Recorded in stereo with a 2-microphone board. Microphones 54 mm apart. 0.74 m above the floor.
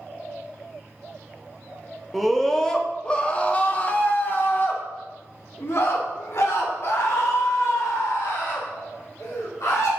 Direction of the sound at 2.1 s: 5° left (ahead or behind).